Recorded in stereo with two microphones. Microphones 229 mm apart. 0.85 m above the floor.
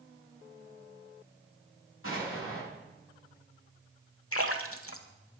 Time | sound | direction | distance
2.0 | an explosion | 70° left (ahead or behind) | 8.5 m
4.3 | a splash | 75° left (ahead or behind) | 1.4 m